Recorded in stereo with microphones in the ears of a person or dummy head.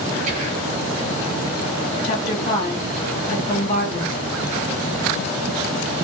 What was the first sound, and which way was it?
Whispering, 40° right (ahead or behind).